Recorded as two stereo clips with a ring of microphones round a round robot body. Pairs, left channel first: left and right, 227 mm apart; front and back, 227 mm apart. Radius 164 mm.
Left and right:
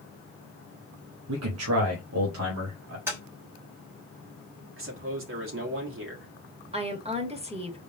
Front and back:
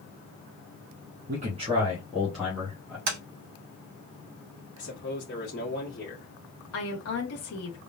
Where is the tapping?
170° right, 1.2 m.